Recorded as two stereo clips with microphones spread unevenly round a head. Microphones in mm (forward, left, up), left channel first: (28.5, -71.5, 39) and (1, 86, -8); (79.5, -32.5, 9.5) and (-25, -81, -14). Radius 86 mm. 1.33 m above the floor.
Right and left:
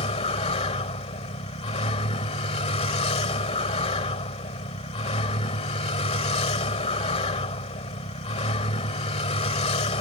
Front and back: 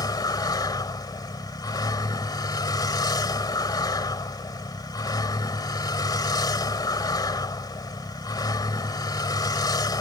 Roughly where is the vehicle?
Ahead right.